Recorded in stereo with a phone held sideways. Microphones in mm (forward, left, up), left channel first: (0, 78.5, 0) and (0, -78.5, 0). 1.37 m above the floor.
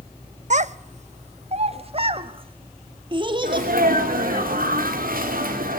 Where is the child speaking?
50° right (ahead or behind), 0.7 m; by 4.4 s 30° right (ahead or behind), 2.5 m.